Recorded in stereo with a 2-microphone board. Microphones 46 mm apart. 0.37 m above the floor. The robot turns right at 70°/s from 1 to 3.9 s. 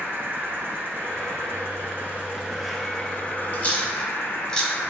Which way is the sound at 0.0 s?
120° right.